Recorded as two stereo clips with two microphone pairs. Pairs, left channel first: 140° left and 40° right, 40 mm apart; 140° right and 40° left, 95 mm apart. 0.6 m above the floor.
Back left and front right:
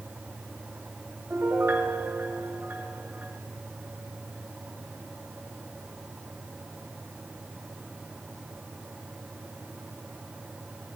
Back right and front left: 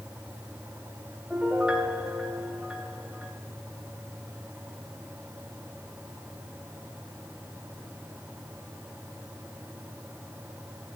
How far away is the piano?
About 3 m.